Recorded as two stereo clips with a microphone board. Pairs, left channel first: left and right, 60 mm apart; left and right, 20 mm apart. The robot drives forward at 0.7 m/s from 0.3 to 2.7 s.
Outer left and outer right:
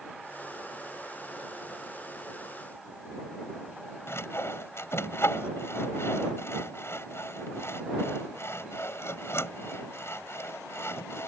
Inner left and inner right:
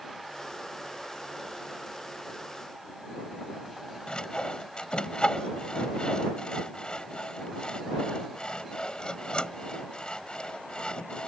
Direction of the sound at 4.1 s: 50° left (ahead or behind).